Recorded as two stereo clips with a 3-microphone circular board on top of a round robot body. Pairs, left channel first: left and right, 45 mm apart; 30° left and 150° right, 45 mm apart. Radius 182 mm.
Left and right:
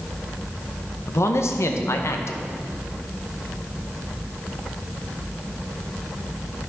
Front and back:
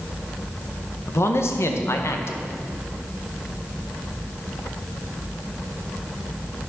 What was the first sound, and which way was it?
A man speaking, 65° left.